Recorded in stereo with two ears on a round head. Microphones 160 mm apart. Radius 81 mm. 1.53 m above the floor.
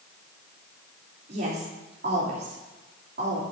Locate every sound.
1.3 s a woman speaking: 55° right (ahead or behind), 3 m